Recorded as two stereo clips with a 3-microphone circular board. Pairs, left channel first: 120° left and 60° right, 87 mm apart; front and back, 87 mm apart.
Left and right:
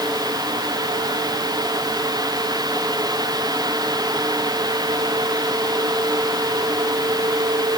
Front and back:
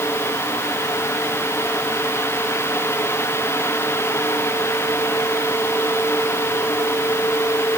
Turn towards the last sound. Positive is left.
No sound to turn to.